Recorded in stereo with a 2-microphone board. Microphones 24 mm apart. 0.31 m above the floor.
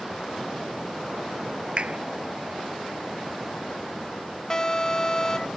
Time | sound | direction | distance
1.8 | a clap | 50° right (ahead or behind) | ?
4.5 | an alarm | 25° left (ahead or behind) | ?